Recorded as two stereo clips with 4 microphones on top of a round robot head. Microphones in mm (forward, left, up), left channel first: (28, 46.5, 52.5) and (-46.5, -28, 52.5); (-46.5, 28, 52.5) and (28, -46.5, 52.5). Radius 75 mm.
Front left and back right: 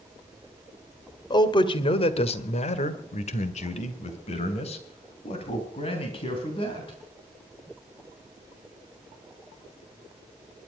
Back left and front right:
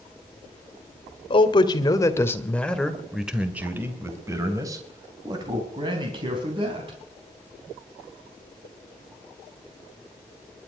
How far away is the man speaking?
About 1.9 m.